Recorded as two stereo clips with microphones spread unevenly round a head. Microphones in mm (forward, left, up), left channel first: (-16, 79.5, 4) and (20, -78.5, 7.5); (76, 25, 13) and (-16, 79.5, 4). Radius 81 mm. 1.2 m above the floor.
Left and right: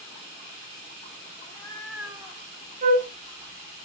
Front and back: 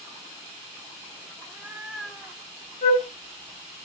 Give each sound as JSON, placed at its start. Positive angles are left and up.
{"t": 1.4, "sound": "a cat meowing", "azimuth_deg": 85, "distance_m": 0.6}
{"t": 2.8, "sound": "a flute", "azimuth_deg": -35, "distance_m": 0.7}